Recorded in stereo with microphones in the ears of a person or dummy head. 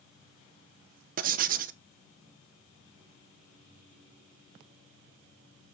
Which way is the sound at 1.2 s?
50° right (ahead or behind).